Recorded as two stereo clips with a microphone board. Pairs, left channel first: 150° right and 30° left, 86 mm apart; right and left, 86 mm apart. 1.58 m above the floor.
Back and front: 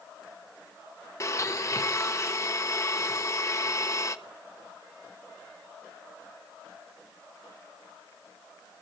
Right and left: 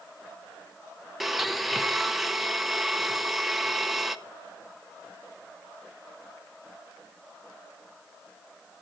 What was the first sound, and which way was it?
A blender, 175° left.